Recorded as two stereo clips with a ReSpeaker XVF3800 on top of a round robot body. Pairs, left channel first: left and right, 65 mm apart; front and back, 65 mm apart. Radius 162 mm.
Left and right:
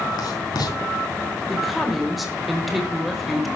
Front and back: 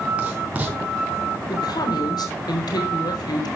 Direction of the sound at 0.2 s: 110° left.